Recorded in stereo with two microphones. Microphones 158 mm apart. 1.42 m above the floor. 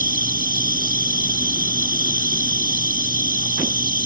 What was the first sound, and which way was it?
An insect, 70° right (ahead or behind).